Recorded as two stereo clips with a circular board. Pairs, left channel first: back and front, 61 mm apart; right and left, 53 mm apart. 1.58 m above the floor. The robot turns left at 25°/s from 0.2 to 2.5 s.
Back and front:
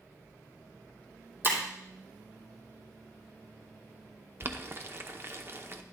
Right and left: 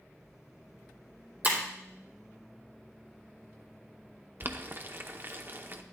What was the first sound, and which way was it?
Breaking glass, 45° left.